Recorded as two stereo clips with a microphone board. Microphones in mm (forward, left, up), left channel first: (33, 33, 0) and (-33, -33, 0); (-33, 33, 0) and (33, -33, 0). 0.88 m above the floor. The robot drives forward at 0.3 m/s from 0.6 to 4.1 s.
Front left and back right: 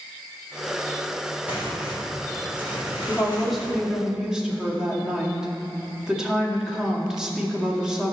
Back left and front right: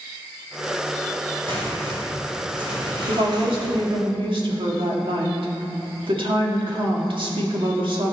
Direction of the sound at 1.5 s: 60° right.